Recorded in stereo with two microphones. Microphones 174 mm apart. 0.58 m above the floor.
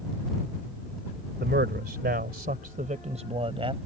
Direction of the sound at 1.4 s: 75° right (ahead or behind).